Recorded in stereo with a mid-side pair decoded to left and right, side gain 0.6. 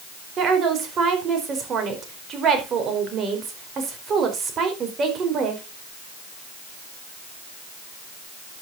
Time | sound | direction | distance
0.4 | a woman speaking | 45° right | 5 m